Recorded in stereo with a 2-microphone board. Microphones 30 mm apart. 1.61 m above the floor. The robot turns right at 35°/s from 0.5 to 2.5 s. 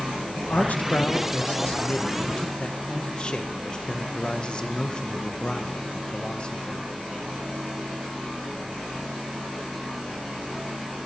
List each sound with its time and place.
0.4 s a man speaking: 70° left, 1.1 m; by 6.9 s 140° left, 1.1 m